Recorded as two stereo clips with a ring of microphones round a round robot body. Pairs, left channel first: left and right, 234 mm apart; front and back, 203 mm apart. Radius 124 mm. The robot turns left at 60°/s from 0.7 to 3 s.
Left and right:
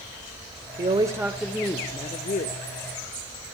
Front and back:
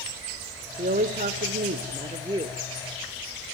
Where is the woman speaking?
145° right, 1.2 m; by 2.5 s 110° left, 1.2 m.